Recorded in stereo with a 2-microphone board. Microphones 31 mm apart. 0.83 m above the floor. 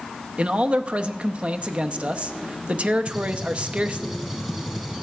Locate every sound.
0.4 s a man speaking: 40° right (ahead or behind), 0.6 m
3.1 s a gunshot: 10° right (ahead or behind), 1.6 m